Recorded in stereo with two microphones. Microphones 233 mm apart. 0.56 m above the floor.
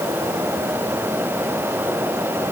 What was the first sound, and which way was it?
Only background noise.